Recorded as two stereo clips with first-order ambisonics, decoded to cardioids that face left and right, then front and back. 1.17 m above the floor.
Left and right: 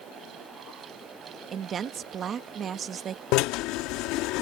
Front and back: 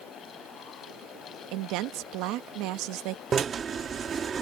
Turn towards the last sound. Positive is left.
turn(degrees=115)